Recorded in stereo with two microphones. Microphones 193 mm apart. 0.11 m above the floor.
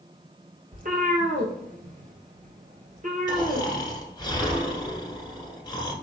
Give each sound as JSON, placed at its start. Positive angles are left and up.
{"t": 0.7, "sound": "a cat meowing", "side_deg": -50, "distance_m": 1.0}
{"t": 3.3, "sound": "snoring", "side_deg": 25, "distance_m": 1.2}